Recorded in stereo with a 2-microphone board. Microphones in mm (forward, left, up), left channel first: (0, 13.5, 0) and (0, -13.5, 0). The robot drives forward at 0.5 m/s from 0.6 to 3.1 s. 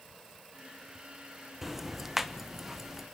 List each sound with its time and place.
1.6 s ticking: 5° right (ahead or behind), 1.1 m